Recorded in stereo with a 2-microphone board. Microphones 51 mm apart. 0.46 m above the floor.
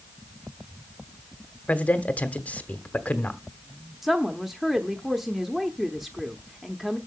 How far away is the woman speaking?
About 0.9 m.